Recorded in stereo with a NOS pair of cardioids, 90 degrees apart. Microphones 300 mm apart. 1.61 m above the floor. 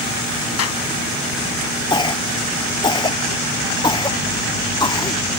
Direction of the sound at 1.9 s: 15° left.